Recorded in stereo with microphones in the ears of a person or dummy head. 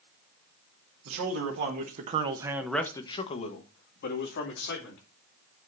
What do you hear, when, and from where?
1.1 s a man speaking: 70° right (ahead or behind), 2.0 m; by 5.0 s 65° left (ahead or behind), 3 m